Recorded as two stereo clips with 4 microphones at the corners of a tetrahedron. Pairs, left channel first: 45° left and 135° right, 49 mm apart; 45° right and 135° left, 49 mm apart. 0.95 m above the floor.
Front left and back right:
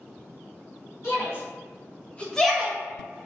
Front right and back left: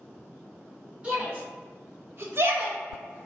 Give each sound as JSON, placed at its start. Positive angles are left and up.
{"t": 1.0, "sound": "a shout", "azimuth_deg": 75, "distance_m": 1.9}